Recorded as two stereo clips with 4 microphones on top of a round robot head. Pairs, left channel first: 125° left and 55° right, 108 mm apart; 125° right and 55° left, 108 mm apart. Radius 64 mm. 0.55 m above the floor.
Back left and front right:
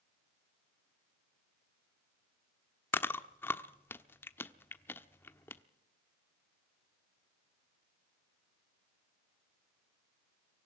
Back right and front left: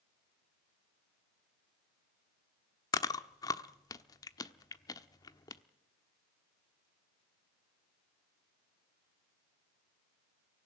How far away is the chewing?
About 1.1 m.